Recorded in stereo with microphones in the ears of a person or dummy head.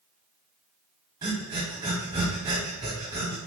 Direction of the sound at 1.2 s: 15° right (ahead or behind).